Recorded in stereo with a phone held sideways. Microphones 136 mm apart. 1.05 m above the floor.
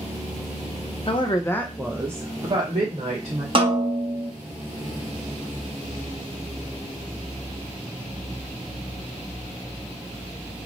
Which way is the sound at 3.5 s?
40° right (ahead or behind).